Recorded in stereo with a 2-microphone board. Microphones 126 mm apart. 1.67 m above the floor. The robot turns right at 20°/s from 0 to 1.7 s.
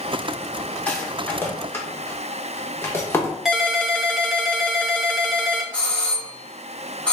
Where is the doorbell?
10° left (ahead or behind), 1.7 m.